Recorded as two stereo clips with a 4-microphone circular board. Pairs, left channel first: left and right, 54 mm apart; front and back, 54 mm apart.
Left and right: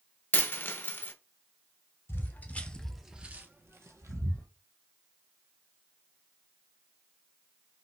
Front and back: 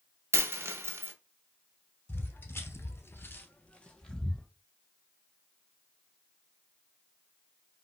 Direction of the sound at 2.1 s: 45° left.